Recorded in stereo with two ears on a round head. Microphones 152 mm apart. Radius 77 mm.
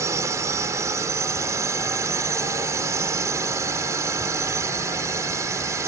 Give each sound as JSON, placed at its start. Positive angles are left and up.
{"t": 0.0, "sound": "a drone", "side_deg": -15}